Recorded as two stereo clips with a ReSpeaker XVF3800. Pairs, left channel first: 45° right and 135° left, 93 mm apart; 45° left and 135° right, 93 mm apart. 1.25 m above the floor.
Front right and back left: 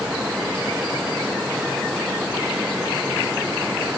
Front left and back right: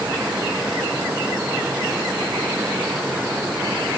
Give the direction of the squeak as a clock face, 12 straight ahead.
No squeak in this recording.